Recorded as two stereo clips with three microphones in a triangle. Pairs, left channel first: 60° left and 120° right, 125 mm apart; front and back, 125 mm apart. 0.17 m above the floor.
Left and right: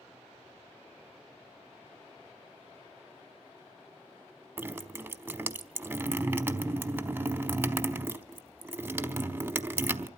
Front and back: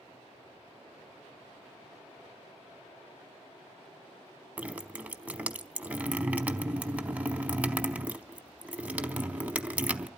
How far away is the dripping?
About 0.7 m.